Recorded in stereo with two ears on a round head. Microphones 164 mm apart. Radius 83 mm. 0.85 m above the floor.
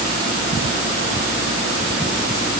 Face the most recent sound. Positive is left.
No sound to turn to.